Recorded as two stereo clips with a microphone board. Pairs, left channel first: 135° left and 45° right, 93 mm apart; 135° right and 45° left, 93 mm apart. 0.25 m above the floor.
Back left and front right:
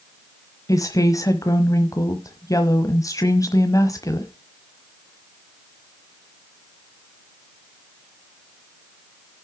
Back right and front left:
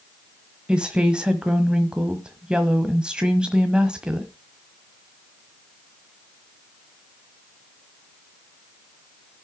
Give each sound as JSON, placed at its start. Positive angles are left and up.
{"t": 0.7, "sound": "a woman speaking", "azimuth_deg": 120, "distance_m": 1.2}